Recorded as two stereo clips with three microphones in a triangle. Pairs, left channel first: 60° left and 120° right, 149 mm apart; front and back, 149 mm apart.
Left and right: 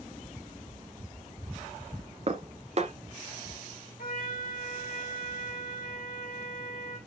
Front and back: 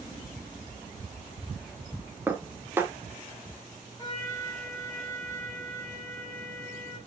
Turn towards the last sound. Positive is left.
turn(degrees=70)